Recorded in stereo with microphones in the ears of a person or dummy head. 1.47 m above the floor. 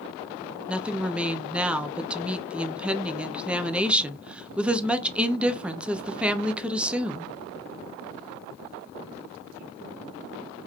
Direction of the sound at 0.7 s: 5° right (ahead or behind).